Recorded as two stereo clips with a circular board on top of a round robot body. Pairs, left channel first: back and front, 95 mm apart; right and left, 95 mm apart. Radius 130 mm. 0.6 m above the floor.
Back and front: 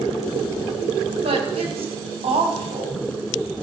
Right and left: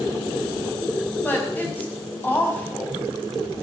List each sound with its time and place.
1.2 s a woman speaking: 15° right, 5 m